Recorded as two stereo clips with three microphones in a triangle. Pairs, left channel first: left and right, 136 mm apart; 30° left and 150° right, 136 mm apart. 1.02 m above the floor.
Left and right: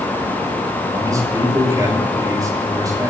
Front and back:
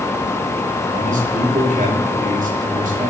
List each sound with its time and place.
0.9 s a man speaking: 155° right, 5 m